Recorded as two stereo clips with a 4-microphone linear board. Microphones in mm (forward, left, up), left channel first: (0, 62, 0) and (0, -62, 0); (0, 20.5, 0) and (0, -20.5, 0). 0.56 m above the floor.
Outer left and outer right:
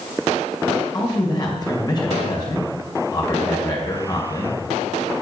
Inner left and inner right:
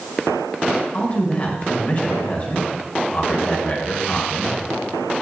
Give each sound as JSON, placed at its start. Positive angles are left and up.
{"t": 0.9, "sound": "a man speaking", "side_deg": 35, "distance_m": 2.5}